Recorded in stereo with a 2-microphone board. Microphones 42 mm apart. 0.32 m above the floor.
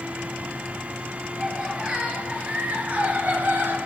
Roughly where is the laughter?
Centre.